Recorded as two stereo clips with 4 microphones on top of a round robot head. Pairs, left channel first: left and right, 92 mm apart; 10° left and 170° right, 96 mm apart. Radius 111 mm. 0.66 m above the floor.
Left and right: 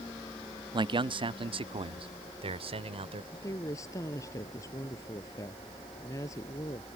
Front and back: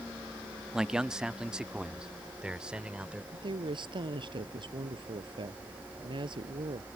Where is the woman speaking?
150° left.